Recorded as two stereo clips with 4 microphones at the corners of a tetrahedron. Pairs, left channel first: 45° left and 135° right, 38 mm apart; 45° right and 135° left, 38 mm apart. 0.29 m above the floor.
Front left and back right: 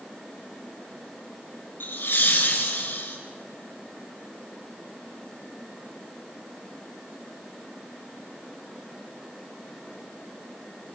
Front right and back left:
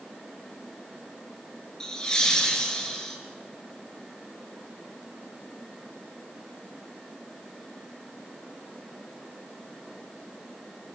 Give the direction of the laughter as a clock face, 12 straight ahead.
11 o'clock.